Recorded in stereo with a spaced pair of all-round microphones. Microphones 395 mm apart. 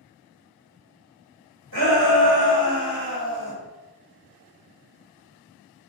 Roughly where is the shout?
Right.